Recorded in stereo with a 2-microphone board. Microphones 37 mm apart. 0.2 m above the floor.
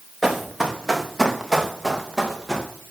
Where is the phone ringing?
I don't hear a phone ringing.